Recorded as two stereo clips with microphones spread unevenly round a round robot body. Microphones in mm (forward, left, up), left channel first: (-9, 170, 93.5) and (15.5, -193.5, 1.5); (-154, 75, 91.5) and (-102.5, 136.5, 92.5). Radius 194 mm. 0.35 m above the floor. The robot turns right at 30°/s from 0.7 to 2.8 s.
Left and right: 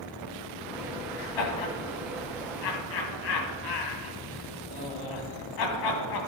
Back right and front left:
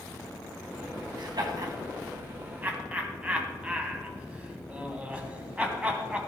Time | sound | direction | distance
1.2 | laughter | 75° left | 3 m